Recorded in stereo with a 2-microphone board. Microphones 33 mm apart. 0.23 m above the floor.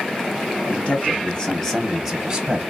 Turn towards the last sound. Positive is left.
turn(degrees=-25)  # may be behind; listen again after turning